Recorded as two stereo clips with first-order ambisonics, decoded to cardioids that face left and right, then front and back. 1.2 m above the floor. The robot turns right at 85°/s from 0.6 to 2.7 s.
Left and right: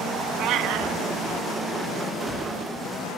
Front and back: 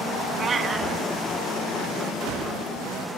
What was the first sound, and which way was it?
A cat meowing, 110° right.